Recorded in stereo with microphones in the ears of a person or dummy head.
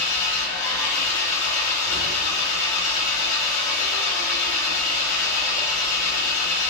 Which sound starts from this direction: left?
An engine running, at 0.0 s.